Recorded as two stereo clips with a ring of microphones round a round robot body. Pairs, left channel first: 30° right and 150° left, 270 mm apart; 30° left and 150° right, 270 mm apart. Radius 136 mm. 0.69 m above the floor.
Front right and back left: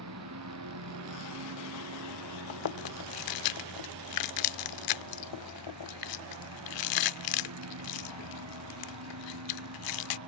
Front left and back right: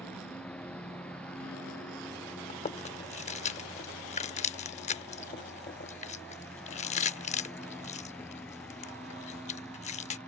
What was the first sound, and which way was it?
A lawn mower, 115° left.